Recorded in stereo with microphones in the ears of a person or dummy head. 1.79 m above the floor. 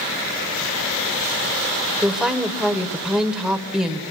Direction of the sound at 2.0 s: 5° right (ahead or behind).